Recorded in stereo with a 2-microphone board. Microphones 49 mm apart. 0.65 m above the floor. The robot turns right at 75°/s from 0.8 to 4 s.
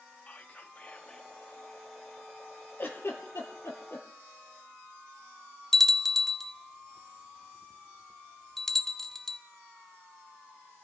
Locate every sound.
0.3 s whispering: 125° left, 0.8 m; by 1.3 s 160° left, 0.8 m
2.8 s a giggle: 40° left (ahead or behind), 3 m; by 4.0 s 45° left (ahead or behind), 3 m
5.7 s a bell: 5° left (ahead or behind), 0.7 m